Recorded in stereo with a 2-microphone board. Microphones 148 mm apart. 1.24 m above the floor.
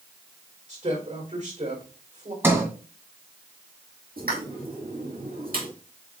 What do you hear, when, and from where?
0.7 s a woman speaking: 55° right (ahead or behind), 4 m
2.4 s a sliding door: 15° right (ahead or behind), 1.9 m
4.2 s a pop: 80° right, 2 m